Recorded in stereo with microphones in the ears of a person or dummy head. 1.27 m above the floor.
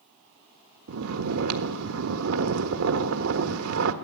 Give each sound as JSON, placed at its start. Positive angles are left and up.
{"t": 0.9, "sound": "snoring", "side_deg": -70, "distance_m": 1.5}